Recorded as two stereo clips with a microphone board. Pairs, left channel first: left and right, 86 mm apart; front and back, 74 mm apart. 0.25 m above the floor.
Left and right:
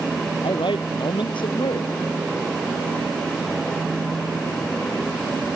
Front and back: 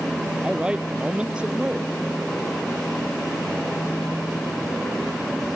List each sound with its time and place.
0.4 s a man speaking: 105° left